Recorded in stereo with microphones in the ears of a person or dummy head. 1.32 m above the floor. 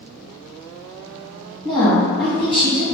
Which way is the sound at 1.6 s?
25° left (ahead or behind).